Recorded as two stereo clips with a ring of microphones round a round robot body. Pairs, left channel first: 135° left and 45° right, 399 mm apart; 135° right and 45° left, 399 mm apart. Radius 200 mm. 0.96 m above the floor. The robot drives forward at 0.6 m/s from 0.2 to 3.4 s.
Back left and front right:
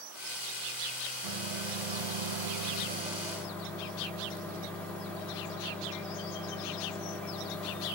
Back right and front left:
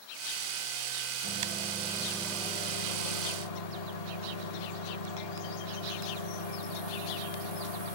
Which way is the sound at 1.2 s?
20° right.